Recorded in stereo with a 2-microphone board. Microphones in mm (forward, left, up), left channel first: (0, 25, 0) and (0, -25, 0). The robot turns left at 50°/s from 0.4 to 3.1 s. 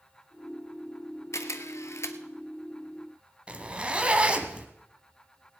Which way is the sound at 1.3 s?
70° left (ahead or behind).